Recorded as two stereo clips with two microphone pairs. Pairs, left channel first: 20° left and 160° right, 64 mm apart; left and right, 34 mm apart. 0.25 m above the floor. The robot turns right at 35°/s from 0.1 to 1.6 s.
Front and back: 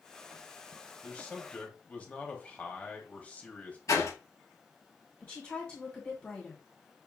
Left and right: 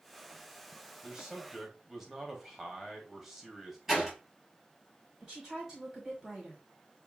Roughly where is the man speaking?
Ahead right.